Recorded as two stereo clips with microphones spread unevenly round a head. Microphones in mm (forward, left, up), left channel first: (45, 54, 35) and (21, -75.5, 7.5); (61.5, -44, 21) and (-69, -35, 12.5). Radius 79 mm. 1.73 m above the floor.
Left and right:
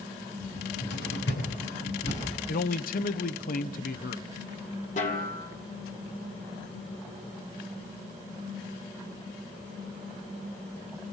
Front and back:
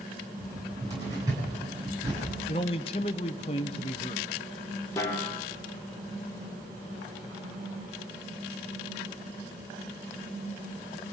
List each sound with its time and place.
0.4 s a cupboard door: 105° left, 9.5 m
2.5 s a man speaking: 55° left, 1.0 m
5.0 s a snare drum: 65° left, 2.5 m